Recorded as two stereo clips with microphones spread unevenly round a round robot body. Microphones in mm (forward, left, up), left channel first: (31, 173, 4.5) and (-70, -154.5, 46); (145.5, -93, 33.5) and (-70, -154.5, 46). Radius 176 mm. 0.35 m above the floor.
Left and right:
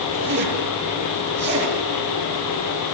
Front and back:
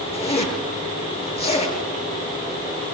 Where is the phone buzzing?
No phone buzzing in this recording.